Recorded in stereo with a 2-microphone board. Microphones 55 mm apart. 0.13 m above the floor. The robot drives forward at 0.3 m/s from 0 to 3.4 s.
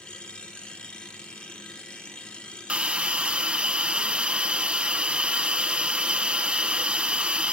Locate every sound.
2.7 s a hiss: 20° right (ahead or behind), 0.9 m